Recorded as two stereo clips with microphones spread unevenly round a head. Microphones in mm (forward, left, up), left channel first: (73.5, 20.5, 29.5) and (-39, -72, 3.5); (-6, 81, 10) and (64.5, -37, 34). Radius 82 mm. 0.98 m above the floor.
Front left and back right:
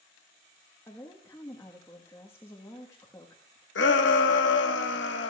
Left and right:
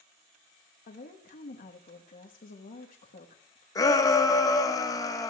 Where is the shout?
55° left, 1.3 m.